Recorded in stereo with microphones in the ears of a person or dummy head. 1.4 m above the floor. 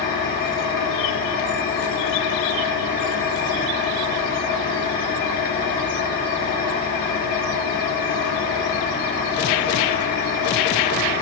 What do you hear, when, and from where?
0.0 s an engine running: 55° left (ahead or behind), 4 m